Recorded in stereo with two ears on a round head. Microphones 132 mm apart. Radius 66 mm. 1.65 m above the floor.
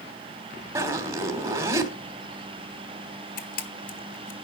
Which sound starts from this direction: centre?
A zipper, at 0.8 s.